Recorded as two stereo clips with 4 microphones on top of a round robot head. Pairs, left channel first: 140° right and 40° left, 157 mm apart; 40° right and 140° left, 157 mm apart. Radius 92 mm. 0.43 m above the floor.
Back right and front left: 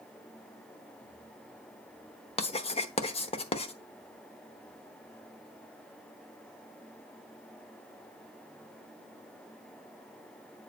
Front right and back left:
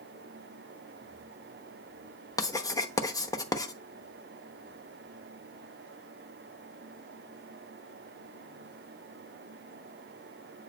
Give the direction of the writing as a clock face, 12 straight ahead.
3 o'clock.